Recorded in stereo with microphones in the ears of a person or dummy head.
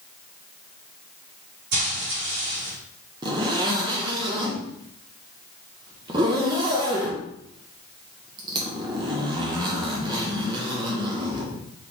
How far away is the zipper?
About 1.0 m.